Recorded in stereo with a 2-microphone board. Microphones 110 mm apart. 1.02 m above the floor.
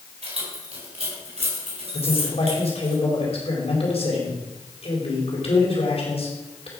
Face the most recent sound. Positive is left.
turn(degrees=70)  # may be behind; listen again after turning